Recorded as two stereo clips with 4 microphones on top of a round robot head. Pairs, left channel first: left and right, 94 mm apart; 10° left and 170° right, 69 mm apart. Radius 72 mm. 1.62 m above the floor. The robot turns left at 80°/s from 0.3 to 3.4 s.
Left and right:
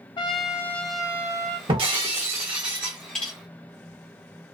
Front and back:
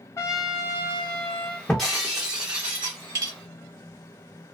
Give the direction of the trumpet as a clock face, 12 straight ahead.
10 o'clock.